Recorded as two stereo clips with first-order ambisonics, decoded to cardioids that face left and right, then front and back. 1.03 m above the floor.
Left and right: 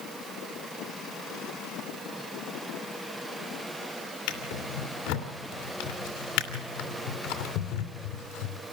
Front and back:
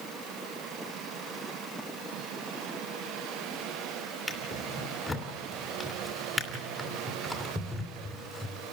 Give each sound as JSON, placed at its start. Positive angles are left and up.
{"t": 4.3, "sound": "a drawer", "azimuth_deg": 85, "distance_m": 2.5}